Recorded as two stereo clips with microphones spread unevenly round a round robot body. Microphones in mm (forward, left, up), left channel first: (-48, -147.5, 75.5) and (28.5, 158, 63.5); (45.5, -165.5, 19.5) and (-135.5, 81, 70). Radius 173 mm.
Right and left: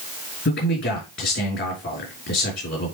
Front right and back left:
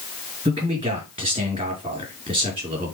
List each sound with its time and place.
0.5 s a man speaking: 160° right, 4.5 m